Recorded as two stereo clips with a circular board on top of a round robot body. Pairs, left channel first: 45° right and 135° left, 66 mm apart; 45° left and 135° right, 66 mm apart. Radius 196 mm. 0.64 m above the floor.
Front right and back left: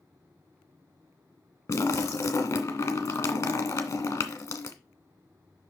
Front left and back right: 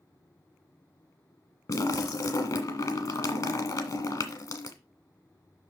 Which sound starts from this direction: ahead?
A splash, at 1.7 s.